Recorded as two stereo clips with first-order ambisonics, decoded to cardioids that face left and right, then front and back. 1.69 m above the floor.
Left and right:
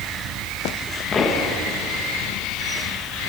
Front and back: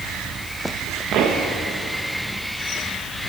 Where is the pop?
150° left, 1.2 m.